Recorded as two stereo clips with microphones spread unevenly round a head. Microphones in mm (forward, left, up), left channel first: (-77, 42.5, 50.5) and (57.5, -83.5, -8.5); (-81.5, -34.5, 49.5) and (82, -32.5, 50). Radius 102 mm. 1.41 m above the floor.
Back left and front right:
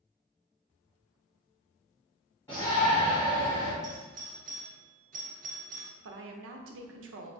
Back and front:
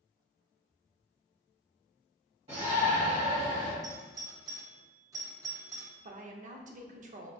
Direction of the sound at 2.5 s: 60° left.